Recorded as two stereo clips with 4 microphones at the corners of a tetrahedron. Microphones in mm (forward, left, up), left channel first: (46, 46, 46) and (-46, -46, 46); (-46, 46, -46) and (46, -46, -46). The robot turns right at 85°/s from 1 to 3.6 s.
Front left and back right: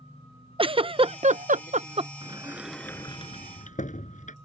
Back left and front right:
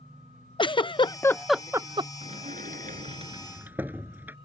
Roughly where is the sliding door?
Right.